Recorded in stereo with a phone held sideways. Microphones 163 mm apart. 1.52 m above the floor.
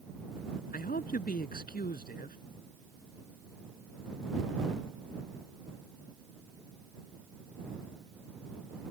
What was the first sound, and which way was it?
A man speaking, 65° left (ahead or behind).